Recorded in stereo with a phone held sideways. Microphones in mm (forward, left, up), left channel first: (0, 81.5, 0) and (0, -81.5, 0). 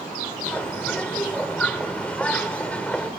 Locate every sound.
0.5 s a bird: 10° left (ahead or behind), 1.4 m